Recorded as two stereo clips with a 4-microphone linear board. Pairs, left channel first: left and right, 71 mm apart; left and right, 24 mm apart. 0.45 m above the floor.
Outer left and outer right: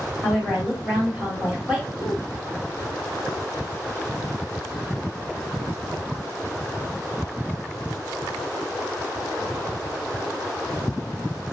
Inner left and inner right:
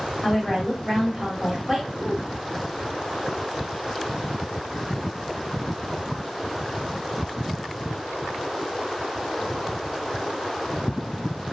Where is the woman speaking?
15° right (ahead or behind), 1.3 m.